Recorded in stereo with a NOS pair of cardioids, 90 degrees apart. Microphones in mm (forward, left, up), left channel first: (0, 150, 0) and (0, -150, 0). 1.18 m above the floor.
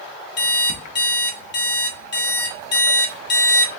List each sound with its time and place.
0.4 s an alarm clock: 35° left, 1.0 m